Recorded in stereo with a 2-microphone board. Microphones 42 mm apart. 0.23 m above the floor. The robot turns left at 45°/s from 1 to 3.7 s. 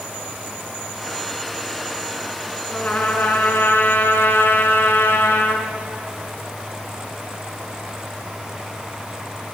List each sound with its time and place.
2.7 s a trumpet: 145° left, 3 m; by 5.7 s 100° left, 3 m